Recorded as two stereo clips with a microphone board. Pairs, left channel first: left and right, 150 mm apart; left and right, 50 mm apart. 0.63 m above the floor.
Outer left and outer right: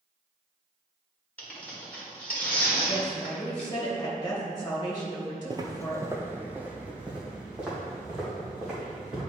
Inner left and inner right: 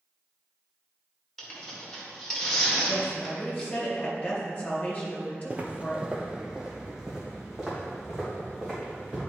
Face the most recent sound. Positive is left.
turn(degrees=-5)  # may be behind; listen again after turning